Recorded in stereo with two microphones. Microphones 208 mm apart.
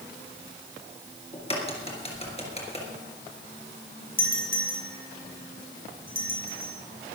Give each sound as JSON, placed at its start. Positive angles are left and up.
{"t": 1.3, "sound": "a crack", "side_deg": 30, "distance_m": 3.5}
{"t": 4.2, "sound": "a doorbell", "side_deg": 45, "distance_m": 4.0}